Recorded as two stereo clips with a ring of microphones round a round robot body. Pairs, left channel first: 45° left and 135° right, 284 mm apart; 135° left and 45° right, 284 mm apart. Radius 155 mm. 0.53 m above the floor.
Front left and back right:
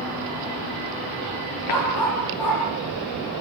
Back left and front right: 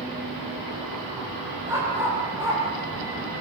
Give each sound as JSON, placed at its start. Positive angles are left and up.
{"t": 1.7, "sound": "a dog barking", "azimuth_deg": 35, "distance_m": 8.5}